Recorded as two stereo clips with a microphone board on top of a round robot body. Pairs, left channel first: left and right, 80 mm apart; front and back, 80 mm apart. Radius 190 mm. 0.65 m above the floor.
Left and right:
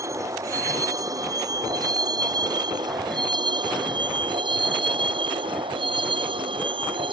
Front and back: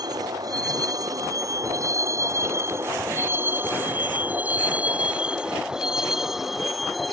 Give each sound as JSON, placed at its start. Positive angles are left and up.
{"t": 0.0, "sound": "a vehicle", "azimuth_deg": -140}